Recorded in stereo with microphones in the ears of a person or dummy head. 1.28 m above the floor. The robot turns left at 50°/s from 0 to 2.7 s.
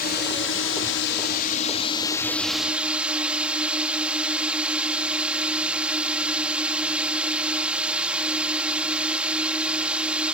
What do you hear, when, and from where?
0.0 s a drone: 125° left; by 10.3 s 10° right